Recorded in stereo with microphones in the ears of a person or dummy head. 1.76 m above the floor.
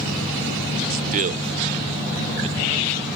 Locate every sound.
0.9 s a man speaking: 50° right (ahead or behind); by 3.1 s 30° right (ahead or behind)